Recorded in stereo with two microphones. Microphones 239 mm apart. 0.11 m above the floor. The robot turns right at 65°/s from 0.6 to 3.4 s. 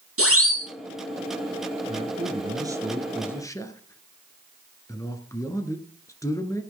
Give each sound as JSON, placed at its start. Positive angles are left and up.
{"t": 0.2, "sound": "a siren", "side_deg": -65, "distance_m": 5.0}
{"t": 1.9, "sound": "a man speaking", "azimuth_deg": -75, "distance_m": 2.0}